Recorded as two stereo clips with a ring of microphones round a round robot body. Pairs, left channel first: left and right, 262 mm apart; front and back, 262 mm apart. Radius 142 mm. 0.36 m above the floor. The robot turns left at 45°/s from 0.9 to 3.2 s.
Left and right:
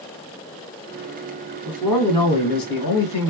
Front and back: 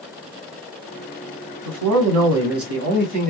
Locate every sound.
1.6 s a man speaking: 170° right, 2.5 m; by 3.3 s 120° left, 2.5 m